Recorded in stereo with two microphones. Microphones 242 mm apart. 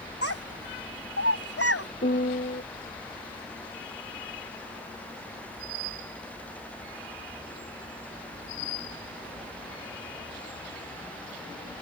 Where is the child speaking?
65° left (ahead or behind).